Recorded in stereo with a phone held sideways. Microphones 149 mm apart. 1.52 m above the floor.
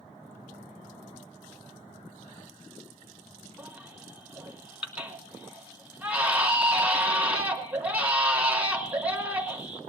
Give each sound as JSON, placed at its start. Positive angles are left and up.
{"t": 3.6, "sound": "a baby crying", "side_deg": -10, "distance_m": 3.5}